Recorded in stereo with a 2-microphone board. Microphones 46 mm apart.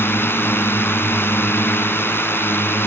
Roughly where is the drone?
Left.